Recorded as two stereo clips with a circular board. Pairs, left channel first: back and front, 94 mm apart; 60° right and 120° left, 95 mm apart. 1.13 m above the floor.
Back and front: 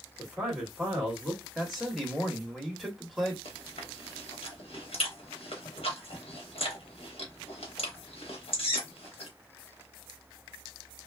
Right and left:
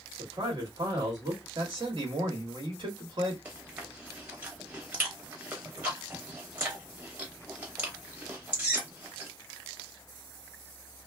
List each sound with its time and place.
0.2 s a man speaking: 80° left, 1.6 m
1.6 s a man speaking: 90° left, 1.4 m
3.5 s chewing: 170° right, 1.1 m